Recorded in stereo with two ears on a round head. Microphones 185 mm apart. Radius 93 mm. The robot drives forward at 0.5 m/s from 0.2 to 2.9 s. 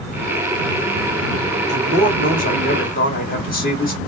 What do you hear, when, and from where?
1.7 s a man speaking: 35° left (ahead or behind), 2 m; by 4.0 s 45° left (ahead or behind), 1.7 m